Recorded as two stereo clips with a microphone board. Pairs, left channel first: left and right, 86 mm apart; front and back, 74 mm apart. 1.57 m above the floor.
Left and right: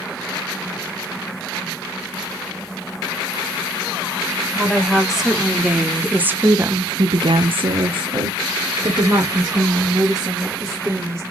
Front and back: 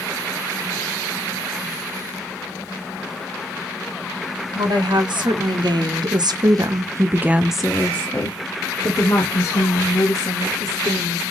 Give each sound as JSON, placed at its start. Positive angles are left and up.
{"t": 4.5, "sound": "a woman speaking", "azimuth_deg": 180, "distance_m": 1.7}